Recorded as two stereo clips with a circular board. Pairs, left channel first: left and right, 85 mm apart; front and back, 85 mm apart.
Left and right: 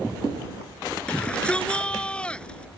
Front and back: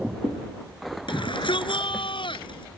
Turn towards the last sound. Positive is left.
turn(degrees=10)